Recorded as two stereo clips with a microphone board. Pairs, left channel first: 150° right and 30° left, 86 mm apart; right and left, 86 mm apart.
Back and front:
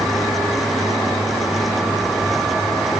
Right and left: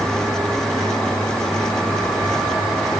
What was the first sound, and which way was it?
Only background noise.